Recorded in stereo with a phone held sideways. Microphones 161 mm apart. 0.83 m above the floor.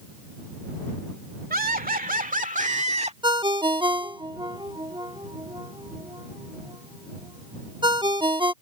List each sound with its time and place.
1.5 s laughter: 65° right (ahead or behind); by 3.1 s 40° right (ahead or behind)
3.2 s a ringtone: 30° right (ahead or behind)